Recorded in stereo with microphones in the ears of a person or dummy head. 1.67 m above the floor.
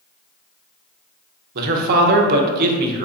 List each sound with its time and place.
1.6 s a man speaking: 55° right (ahead or behind), 0.6 m